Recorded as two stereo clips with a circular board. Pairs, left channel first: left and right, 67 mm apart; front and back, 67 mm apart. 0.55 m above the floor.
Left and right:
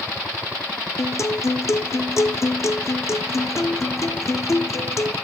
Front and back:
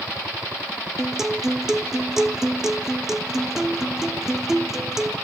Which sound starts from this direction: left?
A guitar, at 1.0 s.